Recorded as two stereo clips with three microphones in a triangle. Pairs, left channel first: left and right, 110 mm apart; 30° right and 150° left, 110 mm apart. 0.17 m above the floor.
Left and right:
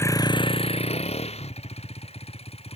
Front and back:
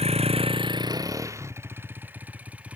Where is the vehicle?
155° left; by 2.8 s 70° left.